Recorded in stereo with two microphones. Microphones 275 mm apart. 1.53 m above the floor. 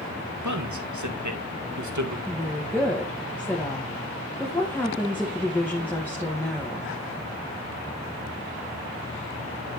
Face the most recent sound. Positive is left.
turn(degrees=5)  # may be behind; listen again after turning